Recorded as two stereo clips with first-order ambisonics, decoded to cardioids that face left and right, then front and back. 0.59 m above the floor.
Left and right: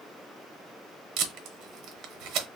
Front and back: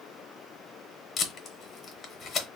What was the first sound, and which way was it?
Tape being pulled, 70° right.